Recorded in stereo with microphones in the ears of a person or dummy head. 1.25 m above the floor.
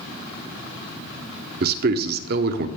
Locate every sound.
1.6 s a man speaking: 50° right (ahead or behind), 0.7 m